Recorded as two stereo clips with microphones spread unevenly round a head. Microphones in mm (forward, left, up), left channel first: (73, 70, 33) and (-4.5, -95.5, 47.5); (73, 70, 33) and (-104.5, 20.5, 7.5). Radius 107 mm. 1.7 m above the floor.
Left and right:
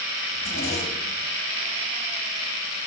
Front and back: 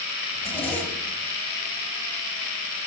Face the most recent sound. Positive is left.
turn(degrees=95)